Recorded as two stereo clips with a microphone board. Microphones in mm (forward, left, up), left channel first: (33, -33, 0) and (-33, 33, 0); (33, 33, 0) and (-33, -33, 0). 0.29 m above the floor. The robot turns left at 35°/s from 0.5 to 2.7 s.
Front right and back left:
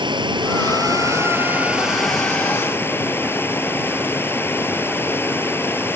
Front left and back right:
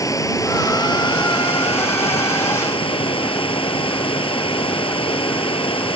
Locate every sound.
0.0 s running water: 100° left; by 6.0 s 25° left